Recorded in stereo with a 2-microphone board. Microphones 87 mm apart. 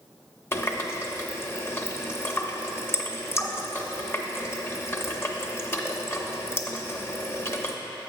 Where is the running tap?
25° left (ahead or behind), 0.6 m.